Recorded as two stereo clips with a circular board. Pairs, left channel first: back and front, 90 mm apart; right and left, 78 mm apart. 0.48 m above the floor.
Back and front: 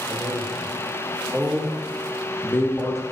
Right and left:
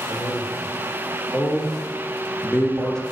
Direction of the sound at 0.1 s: 30° right.